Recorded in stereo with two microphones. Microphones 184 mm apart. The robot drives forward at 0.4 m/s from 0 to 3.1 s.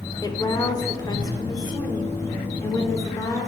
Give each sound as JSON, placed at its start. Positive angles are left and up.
{"t": 0.2, "sound": "a woman speaking", "side_deg": 20, "distance_m": 1.2}